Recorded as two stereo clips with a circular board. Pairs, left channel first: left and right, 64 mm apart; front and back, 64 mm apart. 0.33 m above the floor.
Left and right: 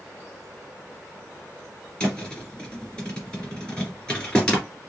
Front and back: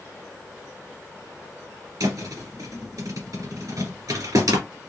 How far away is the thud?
About 2.5 m.